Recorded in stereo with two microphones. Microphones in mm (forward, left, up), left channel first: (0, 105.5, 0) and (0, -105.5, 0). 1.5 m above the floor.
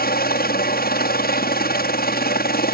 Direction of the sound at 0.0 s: 45° left (ahead or behind).